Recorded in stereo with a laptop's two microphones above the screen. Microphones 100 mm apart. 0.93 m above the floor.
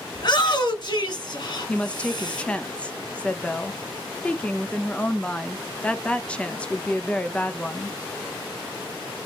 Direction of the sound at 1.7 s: 15° left (ahead or behind).